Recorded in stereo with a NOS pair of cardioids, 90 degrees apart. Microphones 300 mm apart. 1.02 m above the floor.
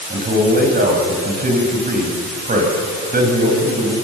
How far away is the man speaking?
About 7.5 m.